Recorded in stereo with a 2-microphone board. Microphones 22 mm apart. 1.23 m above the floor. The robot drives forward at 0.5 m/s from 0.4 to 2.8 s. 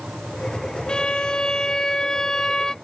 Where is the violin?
45° left (ahead or behind); by 2.8 s 25° left (ahead or behind).